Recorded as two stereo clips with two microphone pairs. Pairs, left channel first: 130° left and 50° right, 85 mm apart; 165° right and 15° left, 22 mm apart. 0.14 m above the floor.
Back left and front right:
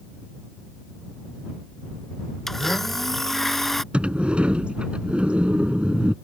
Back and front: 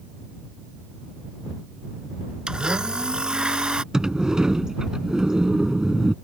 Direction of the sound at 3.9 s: 15° left.